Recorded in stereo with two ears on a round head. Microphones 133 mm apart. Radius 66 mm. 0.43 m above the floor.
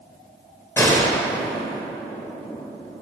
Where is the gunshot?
15° left (ahead or behind), 1.0 m.